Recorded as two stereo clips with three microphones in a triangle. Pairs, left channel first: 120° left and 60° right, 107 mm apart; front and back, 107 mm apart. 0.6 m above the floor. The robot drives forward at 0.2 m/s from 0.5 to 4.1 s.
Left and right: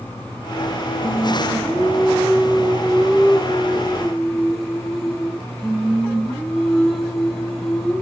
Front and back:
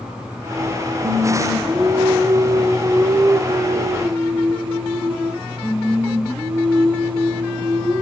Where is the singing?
120° right, 0.8 m; by 8.0 s 150° right, 1.2 m.